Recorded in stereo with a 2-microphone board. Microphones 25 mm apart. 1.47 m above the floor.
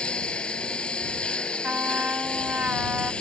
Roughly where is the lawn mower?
Left.